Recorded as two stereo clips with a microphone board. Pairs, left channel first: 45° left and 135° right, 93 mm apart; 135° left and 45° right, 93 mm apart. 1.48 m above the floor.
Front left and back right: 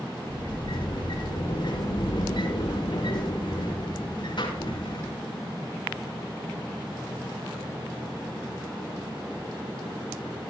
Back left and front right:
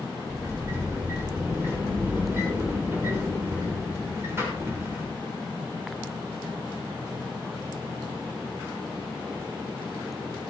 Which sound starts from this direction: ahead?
A sliding door, at 0.3 s.